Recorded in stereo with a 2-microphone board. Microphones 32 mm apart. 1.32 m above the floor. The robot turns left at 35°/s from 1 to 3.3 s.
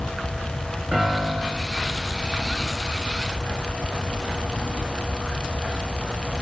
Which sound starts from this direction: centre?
A piano, at 0.9 s.